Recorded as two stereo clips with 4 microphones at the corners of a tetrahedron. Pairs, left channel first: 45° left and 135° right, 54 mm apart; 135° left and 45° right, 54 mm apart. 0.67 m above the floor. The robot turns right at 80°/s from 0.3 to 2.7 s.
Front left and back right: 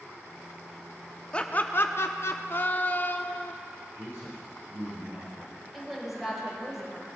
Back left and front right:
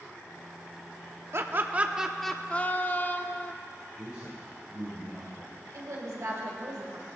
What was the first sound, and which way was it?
Laughter, 20° right.